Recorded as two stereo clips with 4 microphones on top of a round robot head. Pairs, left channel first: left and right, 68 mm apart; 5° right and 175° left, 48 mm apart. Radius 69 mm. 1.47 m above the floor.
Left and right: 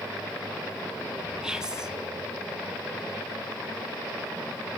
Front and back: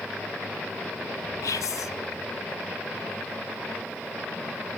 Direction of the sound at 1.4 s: 10° right.